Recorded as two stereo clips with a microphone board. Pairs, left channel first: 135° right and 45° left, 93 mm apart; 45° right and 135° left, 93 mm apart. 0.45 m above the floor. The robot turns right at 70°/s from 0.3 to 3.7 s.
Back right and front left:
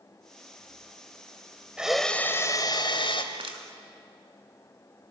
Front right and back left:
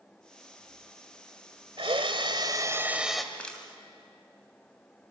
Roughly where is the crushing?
Ahead left.